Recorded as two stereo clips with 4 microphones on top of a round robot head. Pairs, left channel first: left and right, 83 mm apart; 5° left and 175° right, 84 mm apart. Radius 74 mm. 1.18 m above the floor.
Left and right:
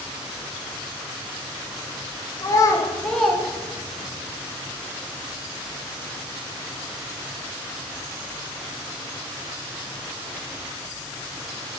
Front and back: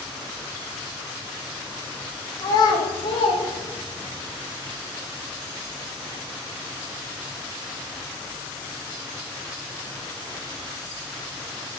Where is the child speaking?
45° left, 0.8 m; by 4.2 s 55° right, 0.8 m.